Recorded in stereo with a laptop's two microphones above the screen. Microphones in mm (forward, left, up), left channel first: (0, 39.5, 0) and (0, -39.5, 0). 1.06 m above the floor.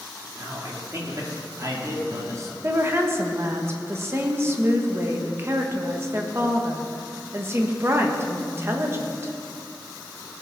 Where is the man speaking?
40° right (ahead or behind), 2.5 m.